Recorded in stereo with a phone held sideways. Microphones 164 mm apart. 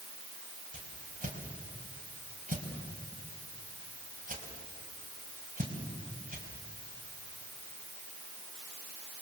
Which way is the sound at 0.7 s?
55° right (ahead or behind).